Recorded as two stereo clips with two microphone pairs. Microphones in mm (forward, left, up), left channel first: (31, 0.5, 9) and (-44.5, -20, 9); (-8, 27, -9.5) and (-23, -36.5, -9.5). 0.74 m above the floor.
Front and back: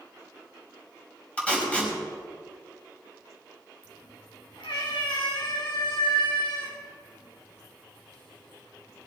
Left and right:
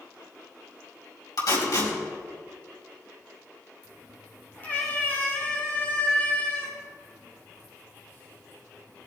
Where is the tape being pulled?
90° left, 5 m.